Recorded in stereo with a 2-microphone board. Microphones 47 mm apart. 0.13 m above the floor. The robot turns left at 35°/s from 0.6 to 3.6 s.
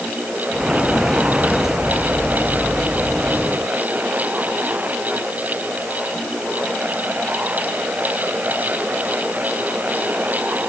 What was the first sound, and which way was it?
Only background noise.